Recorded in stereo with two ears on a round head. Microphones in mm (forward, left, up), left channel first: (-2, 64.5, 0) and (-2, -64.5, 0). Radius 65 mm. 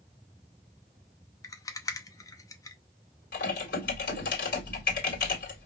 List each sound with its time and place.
1.4 s a rattle: 20° left (ahead or behind), 0.7 m
3.3 s typing on a keyboard: 70° left (ahead or behind), 2 m